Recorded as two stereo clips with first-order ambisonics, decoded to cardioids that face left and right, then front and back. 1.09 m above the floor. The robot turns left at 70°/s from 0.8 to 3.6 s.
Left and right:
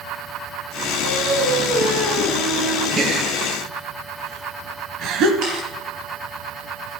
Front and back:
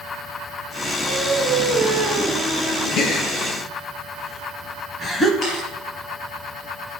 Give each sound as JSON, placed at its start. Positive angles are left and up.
{"t": 1.0, "sound": "singing", "azimuth_deg": -85, "distance_m": 2.5}
{"t": 3.0, "sound": "a gasp", "azimuth_deg": -25, "distance_m": 1.3}
{"t": 5.4, "sound": "a camera shutter", "azimuth_deg": -55, "distance_m": 4.5}